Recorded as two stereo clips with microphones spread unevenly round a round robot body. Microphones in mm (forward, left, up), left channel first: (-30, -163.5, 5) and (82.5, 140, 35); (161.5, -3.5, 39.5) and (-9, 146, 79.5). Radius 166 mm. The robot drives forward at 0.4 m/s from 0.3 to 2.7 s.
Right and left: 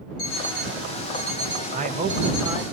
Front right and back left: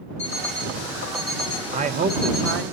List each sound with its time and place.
0.2 s an alarm clock: 110° right, 6 m; by 2.7 s 115° right, 6 m
1.7 s a man speaking: 100° left, 0.6 m; by 2.6 s 155° left, 0.7 m